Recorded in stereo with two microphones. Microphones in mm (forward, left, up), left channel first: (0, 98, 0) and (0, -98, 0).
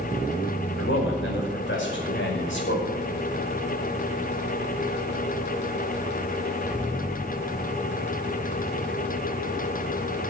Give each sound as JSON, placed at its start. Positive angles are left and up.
{"t": 0.8, "sound": "a man speaking", "side_deg": 85, "distance_m": 5.0}